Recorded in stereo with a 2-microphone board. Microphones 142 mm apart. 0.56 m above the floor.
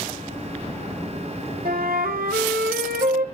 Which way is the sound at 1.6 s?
80° right.